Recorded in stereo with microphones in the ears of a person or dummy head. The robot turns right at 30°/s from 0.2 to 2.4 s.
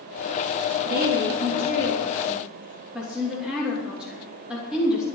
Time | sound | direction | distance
0.8 | a woman speaking | 50° right (ahead or behind) | 3 m